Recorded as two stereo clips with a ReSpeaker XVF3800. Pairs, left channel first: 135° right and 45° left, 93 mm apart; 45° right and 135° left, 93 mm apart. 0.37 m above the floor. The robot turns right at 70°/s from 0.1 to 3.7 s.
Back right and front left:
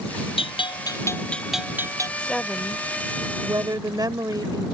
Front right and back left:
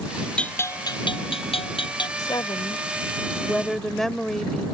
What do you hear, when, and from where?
0.4 s a bell: 125° right; by 2.1 s 5° right
2.2 s a woman speaking: 65° right; by 4.7 s 40° left